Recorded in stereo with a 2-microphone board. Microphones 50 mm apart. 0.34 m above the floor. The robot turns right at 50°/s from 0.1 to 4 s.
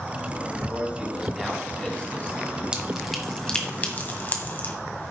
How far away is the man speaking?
About 3 m.